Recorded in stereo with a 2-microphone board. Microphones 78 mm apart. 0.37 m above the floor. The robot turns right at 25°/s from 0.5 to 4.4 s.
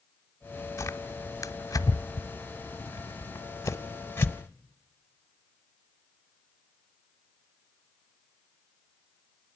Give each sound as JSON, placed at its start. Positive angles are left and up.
{"t": 0.8, "sound": "tearing paper", "side_deg": 45, "distance_m": 1.1}